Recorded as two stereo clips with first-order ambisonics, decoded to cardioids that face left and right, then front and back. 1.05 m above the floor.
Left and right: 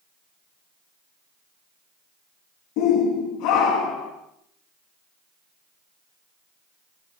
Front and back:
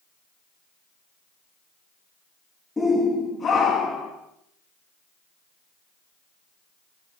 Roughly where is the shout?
Left.